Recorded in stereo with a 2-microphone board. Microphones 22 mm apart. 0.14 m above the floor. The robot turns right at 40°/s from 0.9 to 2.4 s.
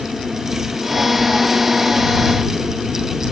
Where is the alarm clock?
No alarm clock in this recording.